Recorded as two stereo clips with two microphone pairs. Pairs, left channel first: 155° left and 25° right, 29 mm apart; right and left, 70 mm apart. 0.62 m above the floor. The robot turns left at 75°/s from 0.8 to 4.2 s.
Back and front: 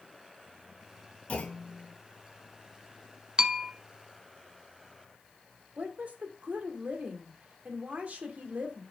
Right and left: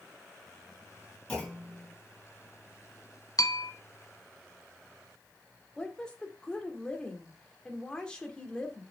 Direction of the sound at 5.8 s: 15° right.